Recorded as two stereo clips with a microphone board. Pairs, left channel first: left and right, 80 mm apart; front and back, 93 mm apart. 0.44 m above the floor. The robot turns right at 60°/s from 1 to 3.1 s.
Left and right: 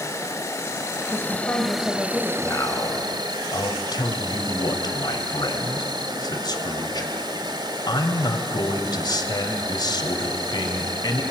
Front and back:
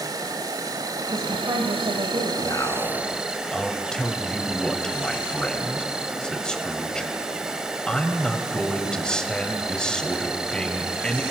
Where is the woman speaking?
125° left, 2.0 m; by 2.3 s 165° right, 2.0 m.